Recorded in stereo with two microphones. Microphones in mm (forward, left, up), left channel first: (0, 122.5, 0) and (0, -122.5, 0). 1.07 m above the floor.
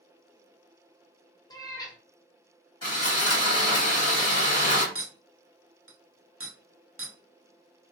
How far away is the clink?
About 0.6 m.